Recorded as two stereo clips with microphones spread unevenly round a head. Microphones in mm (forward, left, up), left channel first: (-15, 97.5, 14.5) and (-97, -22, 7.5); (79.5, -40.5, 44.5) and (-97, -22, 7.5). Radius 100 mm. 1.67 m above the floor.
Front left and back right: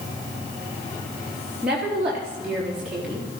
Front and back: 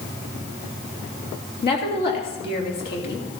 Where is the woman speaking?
35° right, 3.5 m.